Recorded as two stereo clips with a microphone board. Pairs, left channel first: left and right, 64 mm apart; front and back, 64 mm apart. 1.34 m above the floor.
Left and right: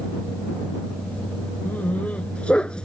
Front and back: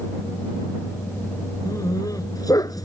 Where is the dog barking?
25° left; by 2.9 s 15° left.